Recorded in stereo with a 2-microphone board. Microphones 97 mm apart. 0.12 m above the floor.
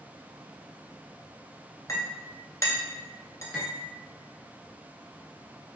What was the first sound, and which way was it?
A clink, 35° left (ahead or behind).